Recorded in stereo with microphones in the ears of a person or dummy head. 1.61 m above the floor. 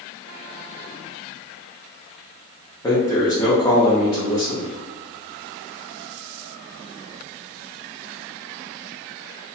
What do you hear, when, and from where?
2.8 s a man speaking: 15° left (ahead or behind), 0.6 m